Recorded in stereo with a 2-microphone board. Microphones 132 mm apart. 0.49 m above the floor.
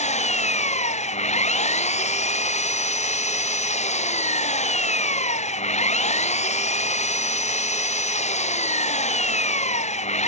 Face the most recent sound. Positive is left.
turn(degrees=60)  # may be behind; listen again after turning